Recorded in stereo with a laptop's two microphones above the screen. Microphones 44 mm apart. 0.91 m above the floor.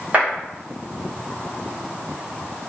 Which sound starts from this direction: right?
A clap, at 0.1 s.